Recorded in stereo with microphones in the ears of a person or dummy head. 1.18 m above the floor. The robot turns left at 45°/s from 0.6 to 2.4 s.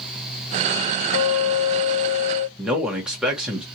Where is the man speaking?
Centre (ahead or behind), 1.0 m.